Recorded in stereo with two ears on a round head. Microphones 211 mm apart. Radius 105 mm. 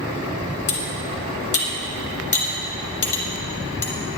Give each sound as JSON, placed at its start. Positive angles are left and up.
{"t": 0.7, "sound": "cutlery clinking", "side_deg": 30, "distance_m": 2.5}